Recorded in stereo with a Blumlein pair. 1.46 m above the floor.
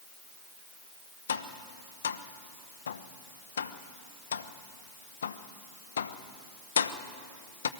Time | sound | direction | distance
1.3 | tapping | 65° left | 1.0 m